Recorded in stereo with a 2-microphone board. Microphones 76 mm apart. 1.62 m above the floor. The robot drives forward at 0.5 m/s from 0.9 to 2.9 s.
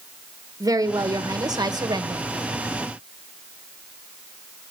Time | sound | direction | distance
0.6 | a woman speaking | 55° right (ahead or behind) | 1.7 m